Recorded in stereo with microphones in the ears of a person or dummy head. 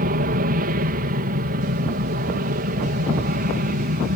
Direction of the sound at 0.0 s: 45° right (ahead or behind).